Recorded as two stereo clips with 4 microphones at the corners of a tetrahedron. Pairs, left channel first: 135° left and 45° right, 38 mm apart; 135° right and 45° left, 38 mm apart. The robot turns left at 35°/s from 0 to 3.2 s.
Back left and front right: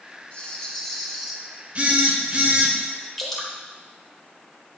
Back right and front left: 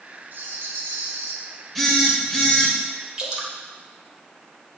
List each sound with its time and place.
0.3 s a rattle: 75° left, 0.8 m; by 1.4 s 35° left, 0.8 m
1.8 s a phone buzzing: 50° right, 1.3 m; by 2.7 s 85° right, 1.3 m
3.2 s dripping: 70° left, 1.3 m